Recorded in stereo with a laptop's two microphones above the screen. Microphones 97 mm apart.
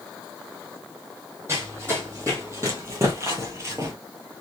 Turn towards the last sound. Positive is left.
turn(degrees=-35)  # may be behind; listen again after turning